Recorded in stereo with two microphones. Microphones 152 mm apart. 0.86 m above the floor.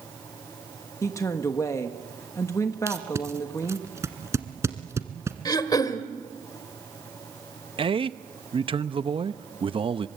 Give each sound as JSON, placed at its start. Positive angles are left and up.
{"t": 1.0, "sound": "a woman speaking", "side_deg": 20, "distance_m": 1.3}
{"t": 2.9, "sound": "tape being pulled", "side_deg": -20, "distance_m": 1.5}
{"t": 5.5, "sound": "throat clearing", "side_deg": 25, "distance_m": 1.3}
{"t": 7.8, "sound": "a man speaking", "side_deg": -35, "distance_m": 0.7}